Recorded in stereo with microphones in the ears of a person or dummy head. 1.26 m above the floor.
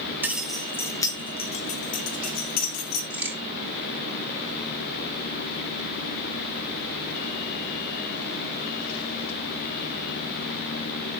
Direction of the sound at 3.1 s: 10° right (ahead or behind).